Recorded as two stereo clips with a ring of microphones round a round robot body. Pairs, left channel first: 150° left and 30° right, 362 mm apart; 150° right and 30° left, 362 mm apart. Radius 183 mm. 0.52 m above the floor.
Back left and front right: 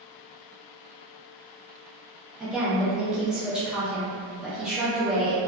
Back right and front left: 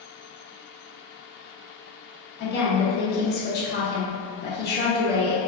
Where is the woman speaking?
115° right, 0.7 m.